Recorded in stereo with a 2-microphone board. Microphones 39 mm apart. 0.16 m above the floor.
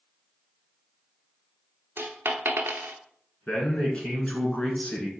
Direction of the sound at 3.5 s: 30° left (ahead or behind).